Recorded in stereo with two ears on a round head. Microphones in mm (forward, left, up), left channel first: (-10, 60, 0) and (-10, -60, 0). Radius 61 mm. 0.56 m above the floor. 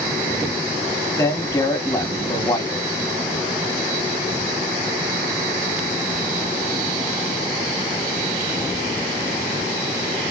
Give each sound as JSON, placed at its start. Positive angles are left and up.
{"t": 1.2, "sound": "a man speaking", "side_deg": 25, "distance_m": 1.1}